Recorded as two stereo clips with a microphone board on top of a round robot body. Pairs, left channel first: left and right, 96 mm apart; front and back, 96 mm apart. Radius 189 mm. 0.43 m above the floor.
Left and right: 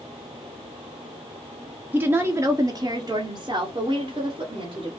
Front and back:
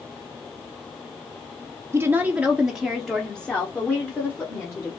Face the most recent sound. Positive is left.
turn(degrees=-65)